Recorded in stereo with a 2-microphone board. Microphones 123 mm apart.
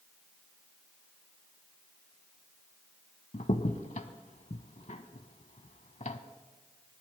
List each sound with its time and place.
3.3 s a crack: 70° left (ahead or behind), 0.7 m